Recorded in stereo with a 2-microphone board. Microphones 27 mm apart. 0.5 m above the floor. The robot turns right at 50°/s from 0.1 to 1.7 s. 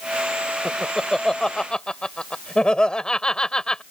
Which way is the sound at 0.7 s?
10° right (ahead or behind).